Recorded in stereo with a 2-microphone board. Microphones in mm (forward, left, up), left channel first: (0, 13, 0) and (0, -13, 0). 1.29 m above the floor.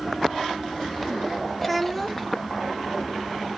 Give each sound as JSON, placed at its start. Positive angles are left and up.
{"t": 1.6, "sound": "a child speaking", "side_deg": 10, "distance_m": 1.7}